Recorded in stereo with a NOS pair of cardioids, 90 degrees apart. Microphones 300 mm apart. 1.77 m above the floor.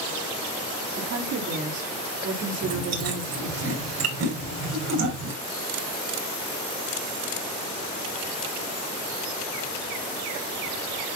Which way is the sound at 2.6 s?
65° right.